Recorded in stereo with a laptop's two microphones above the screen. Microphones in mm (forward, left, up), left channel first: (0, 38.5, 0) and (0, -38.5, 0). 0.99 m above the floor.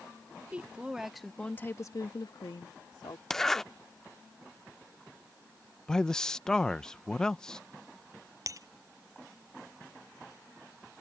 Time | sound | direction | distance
0.5 | a woman speaking | 20° right (ahead or behind) | ?
3.3 | a zipper | 5° left (ahead or behind) | ?
5.9 | a man speaking | 10° left (ahead or behind) | ?
8.5 | breaking glass | 45° right (ahead or behind) | ?